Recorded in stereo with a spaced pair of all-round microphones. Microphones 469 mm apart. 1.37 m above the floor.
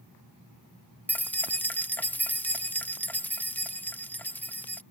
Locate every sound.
1.1 s keys jangling: 5° left (ahead or behind)